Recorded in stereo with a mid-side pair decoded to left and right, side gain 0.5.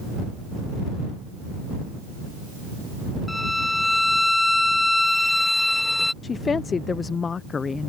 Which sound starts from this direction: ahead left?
A woman speaking, at 6.2 s.